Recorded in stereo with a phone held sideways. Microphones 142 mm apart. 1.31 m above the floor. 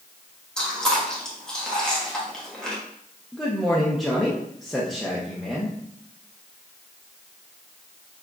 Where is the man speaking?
Centre (ahead or behind), 0.7 m.